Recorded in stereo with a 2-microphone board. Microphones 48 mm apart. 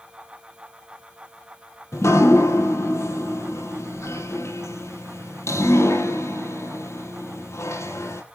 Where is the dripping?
70° left (ahead or behind), 2 m.